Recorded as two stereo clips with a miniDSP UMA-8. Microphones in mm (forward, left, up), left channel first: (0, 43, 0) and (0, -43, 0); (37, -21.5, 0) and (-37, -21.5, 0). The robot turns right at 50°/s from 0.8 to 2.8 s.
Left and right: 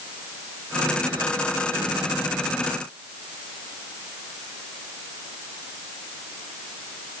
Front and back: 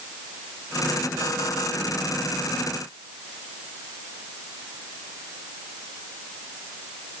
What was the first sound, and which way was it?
Only background noise.